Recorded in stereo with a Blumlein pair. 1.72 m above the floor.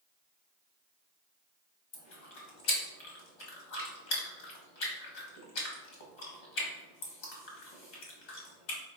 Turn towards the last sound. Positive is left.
turn(degrees=45)